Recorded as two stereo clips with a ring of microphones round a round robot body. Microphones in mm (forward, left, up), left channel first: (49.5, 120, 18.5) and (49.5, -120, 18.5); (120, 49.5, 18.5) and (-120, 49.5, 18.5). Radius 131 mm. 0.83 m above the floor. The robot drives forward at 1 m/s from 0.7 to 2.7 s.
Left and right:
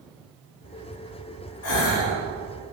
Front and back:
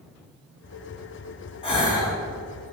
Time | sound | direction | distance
1.6 | a gasp | 70° left | 3.5 m